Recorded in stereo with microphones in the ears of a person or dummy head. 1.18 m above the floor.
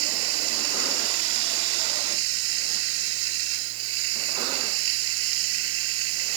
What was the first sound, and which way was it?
Running water, 80° right.